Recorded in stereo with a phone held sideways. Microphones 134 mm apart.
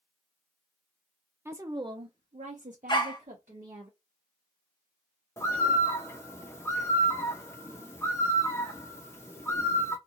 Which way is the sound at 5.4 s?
20° left (ahead or behind).